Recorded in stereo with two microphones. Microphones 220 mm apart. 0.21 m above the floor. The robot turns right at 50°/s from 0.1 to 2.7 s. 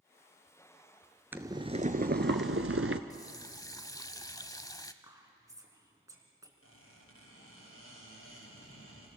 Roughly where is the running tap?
Centre.